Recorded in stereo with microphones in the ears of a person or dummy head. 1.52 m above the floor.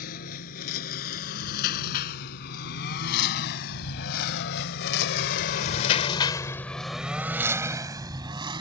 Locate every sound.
0.0 s a lawn mower: 50° left (ahead or behind); by 8.6 s 20° right (ahead or behind)